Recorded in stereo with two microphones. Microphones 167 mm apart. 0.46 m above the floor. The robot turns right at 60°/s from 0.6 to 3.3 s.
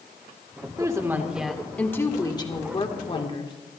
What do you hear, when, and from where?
0.8 s a woman speaking: 45° right, 1.5 m; by 3.5 s 105° left, 1.5 m